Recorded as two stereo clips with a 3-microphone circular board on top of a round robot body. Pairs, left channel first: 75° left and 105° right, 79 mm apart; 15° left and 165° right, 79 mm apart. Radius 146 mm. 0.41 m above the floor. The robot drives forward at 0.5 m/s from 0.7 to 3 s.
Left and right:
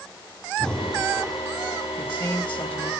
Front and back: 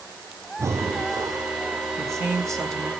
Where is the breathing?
155° left, 0.9 m; by 1.5 s 165° left, 1.2 m.